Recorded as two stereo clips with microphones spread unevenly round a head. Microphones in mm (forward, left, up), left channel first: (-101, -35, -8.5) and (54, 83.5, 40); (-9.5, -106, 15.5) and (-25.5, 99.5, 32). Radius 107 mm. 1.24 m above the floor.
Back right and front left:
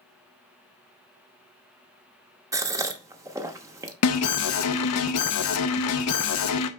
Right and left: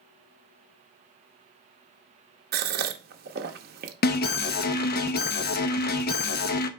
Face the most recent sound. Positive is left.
turn(degrees=-130)